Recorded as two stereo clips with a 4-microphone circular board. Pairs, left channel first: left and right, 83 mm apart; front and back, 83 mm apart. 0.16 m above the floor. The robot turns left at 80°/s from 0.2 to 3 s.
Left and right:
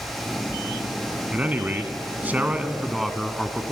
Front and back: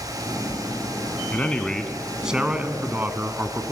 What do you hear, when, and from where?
1.3 s a man speaking: 40° right, 1.2 m; by 3.7 s 175° right, 1.2 m